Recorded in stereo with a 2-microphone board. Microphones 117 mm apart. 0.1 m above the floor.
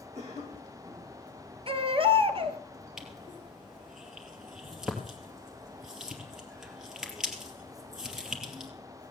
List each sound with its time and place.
0.1 s a cough: 70° right (ahead or behind), 5.5 m
1.7 s a baby crying: 50° right (ahead or behind), 1.1 m
3.0 s crushing: 5° right (ahead or behind), 2.5 m